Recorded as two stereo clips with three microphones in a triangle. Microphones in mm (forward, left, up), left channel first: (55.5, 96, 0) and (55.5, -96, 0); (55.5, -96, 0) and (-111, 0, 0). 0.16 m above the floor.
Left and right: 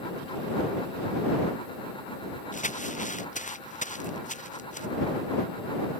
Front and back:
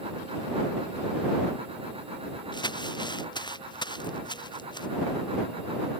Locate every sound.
2.5 s crumpling: 40° left